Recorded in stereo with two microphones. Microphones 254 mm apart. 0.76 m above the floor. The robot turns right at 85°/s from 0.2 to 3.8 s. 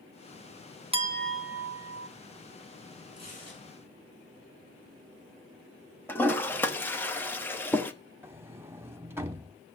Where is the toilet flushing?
10° left (ahead or behind), 1.0 m.